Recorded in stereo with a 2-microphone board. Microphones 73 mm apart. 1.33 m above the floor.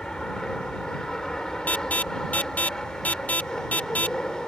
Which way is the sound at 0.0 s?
10° left (ahead or behind).